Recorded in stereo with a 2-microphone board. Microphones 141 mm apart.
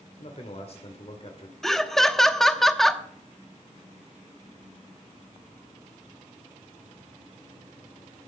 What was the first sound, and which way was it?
A man speaking, 50° left (ahead or behind).